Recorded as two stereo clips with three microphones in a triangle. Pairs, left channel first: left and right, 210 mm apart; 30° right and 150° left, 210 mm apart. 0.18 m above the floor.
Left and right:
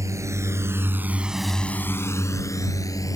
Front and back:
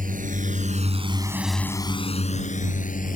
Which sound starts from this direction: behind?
A drone, at 0.0 s.